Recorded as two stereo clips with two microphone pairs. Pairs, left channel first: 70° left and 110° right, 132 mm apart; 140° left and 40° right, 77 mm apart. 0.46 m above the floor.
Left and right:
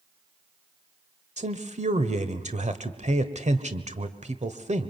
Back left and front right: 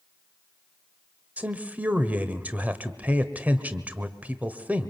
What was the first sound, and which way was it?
A man speaking, 105° right.